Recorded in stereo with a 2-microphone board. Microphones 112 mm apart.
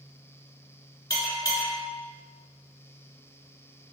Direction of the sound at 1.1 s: 35° left (ahead or behind).